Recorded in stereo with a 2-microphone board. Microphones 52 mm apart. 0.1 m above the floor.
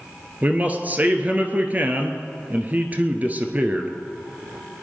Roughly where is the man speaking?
Right.